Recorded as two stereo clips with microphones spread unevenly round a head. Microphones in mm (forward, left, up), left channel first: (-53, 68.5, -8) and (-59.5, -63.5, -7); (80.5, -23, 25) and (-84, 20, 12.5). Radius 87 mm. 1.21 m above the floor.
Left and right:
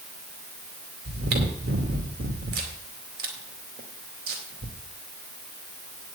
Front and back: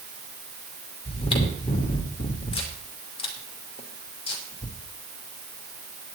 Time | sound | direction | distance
1.1 | chewing | 75° right | 2.5 m